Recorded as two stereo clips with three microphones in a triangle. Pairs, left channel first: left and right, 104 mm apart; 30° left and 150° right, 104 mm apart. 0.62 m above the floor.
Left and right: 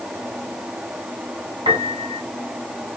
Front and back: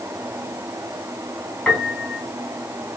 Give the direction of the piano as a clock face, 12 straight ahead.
2 o'clock.